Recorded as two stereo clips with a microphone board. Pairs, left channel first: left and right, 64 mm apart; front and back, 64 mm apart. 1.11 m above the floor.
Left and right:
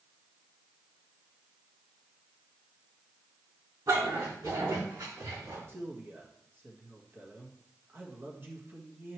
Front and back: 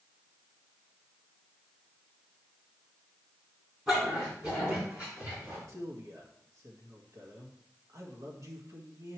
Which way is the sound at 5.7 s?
145° right.